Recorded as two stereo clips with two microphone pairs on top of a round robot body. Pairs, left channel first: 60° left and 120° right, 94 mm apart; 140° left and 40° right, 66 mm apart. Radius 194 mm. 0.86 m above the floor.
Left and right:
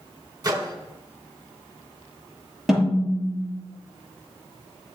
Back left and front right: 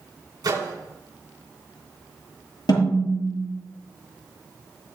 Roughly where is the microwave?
Right.